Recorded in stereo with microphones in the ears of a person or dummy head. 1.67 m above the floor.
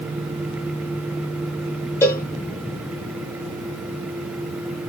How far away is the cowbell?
About 0.8 m.